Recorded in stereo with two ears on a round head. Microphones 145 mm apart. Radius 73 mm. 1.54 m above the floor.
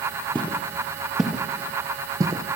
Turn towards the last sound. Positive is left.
turn(degrees=-25)  # may be behind; listen again after turning